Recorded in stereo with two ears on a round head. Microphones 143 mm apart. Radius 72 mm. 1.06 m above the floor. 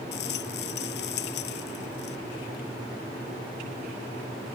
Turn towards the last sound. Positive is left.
turn(degrees=80)